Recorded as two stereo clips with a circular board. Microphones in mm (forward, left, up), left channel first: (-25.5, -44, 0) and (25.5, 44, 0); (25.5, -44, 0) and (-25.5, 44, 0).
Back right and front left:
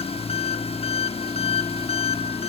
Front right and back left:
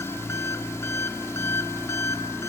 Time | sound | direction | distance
0.0 | an engine running | 125° right | 0.8 m